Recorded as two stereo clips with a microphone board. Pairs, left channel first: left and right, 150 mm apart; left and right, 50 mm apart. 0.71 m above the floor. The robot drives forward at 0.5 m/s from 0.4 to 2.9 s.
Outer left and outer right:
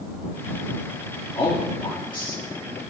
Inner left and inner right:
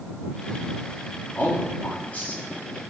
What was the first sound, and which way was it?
A man speaking, 40° left (ahead or behind).